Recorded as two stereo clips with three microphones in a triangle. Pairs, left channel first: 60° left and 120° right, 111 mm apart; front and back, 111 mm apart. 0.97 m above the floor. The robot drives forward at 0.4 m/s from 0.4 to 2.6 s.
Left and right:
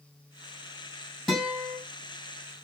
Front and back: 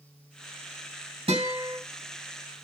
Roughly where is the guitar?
Behind left.